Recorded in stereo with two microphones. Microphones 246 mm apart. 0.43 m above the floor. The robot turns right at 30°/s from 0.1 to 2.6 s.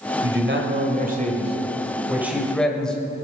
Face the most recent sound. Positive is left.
turn(degrees=5)